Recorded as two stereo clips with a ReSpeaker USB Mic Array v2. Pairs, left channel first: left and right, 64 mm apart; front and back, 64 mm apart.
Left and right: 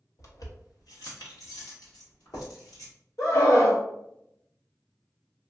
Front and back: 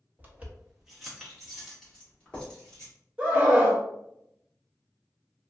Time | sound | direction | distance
0.2 | keys jangling | 120° left | 0.8 m
3.2 | a scream | 105° left | 1.2 m